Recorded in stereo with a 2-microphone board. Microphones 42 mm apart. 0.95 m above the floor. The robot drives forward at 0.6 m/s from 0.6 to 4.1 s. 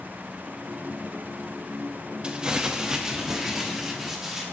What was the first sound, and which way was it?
Crumpling, 25° right (ahead or behind).